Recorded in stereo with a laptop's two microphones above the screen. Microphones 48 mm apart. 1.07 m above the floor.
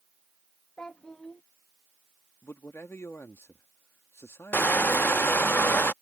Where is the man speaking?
65° left (ahead or behind).